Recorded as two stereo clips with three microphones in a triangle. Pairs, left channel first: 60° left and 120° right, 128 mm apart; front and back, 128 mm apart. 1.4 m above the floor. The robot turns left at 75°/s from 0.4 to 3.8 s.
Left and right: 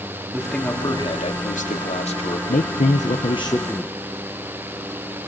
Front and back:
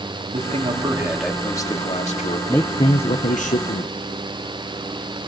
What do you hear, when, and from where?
0.3 s a man speaking: 155° left, 4 m; by 2.4 s 5° left, 4 m
2.5 s a man speaking: 75° left, 1.1 m; by 3.9 s 20° right, 1.1 m